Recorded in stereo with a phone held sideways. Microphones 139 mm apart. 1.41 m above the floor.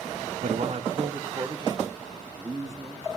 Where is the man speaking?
60° right (ahead or behind), 0.7 m; by 3.2 s 25° right (ahead or behind), 4 m.